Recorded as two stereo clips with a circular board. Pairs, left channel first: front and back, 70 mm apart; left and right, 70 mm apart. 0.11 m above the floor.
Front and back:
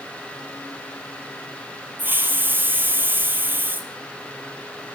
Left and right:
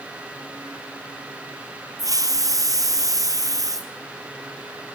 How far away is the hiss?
About 2 m.